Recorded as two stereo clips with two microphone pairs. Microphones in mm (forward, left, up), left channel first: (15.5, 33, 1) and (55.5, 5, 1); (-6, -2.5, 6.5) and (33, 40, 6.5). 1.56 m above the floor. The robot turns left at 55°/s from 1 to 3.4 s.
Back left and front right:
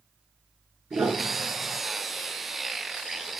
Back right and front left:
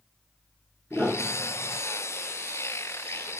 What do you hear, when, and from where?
0.9 s a piano: 20° right, 5 m; by 1.8 s 60° right, 5 m